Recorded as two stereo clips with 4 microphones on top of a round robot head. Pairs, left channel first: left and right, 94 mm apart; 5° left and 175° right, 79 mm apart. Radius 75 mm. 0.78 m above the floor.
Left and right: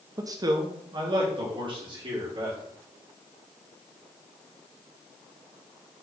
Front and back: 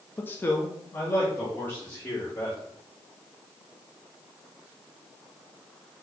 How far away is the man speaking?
About 0.5 m.